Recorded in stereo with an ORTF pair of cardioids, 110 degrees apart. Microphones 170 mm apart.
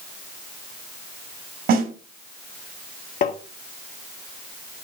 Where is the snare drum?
65° right, 4.5 m.